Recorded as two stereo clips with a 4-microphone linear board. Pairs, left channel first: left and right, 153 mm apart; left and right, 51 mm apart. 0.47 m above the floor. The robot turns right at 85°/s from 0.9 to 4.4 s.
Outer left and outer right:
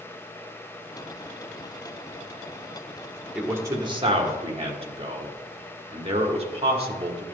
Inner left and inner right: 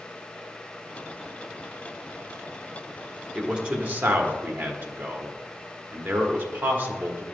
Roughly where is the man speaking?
Centre.